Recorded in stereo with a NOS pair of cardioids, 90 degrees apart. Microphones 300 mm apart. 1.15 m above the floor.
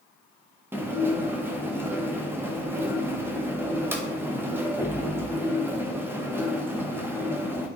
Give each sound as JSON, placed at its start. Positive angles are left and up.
{"t": 0.7, "sound": "dishes clattering", "azimuth_deg": -10, "distance_m": 0.7}